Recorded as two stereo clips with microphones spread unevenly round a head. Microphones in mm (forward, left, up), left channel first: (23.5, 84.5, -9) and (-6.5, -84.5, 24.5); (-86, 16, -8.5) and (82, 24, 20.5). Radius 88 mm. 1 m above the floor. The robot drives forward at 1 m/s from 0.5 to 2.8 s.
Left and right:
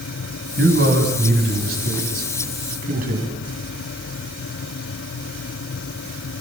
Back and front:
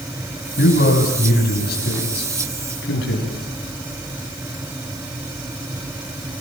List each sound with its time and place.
0.6 s a man speaking: 130° right, 6 m; by 3.3 s 145° right, 7.5 m